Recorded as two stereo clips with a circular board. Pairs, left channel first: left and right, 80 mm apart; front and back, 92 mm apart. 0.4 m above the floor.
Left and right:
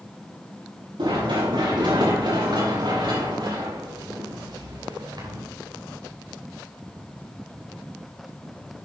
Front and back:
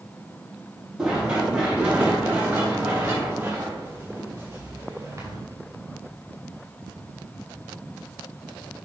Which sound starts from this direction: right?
Running footsteps, at 1.0 s.